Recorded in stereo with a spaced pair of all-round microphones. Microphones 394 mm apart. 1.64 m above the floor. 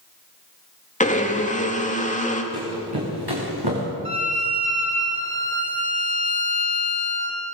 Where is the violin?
70° right (ahead or behind), 3.5 m.